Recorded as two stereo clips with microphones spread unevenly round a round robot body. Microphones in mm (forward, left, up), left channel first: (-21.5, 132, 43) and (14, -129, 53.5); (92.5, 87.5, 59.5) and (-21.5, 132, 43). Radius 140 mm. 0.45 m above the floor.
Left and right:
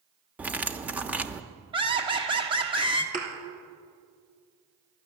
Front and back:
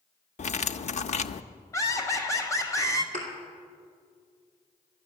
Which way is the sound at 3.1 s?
145° right.